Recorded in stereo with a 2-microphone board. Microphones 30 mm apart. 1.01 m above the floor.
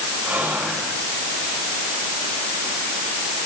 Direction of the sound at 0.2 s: 70° right (ahead or behind).